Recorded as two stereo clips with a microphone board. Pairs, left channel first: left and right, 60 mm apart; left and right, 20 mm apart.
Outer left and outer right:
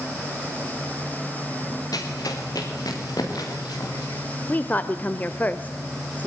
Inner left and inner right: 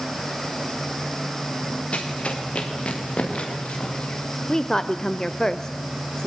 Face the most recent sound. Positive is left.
turn(degrees=30)  # may be behind; listen again after turning